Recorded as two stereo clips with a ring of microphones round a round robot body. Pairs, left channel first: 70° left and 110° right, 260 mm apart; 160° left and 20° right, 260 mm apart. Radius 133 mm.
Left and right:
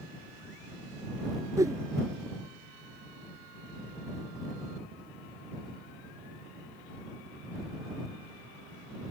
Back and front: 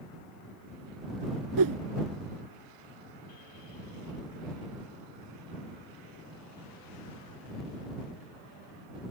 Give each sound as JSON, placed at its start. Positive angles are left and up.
{"t": 1.6, "sound": "a whoosh", "azimuth_deg": -35}